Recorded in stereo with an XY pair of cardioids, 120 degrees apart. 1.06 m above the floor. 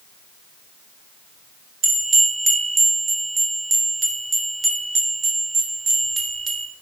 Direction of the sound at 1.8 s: 30° right.